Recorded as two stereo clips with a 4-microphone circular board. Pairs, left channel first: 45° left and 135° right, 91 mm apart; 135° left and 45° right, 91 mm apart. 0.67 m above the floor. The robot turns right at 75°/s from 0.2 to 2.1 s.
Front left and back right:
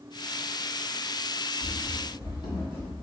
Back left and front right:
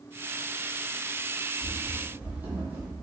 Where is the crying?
No crying in this recording.